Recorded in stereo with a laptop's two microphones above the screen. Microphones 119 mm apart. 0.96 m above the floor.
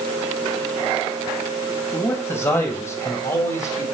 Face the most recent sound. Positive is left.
turn(degrees=25)  # may be behind; listen again after turning